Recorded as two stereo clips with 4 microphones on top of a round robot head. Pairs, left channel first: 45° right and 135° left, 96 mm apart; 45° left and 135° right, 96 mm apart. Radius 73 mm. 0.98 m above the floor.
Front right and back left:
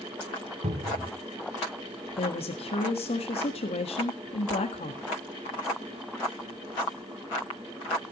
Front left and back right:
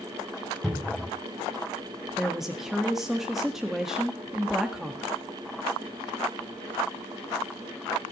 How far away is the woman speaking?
About 1.7 m.